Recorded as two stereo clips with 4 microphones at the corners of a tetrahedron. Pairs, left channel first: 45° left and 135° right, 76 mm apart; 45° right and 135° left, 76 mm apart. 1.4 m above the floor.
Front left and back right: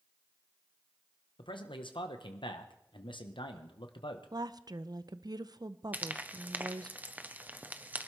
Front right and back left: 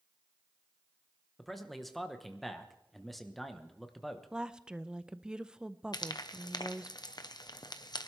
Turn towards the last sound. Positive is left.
turn(degrees=-65)